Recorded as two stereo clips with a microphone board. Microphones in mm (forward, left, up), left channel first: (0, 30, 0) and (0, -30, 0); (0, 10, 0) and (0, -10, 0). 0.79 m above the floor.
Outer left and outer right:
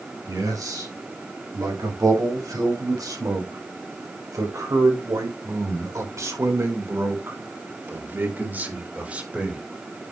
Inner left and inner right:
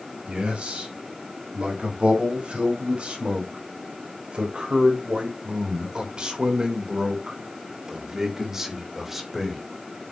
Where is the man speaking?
80° right, 5 m; by 9.6 s 15° right (ahead or behind), 3 m.